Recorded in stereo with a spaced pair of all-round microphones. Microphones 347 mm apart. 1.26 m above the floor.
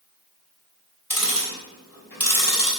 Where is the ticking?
70° left (ahead or behind), 3 m.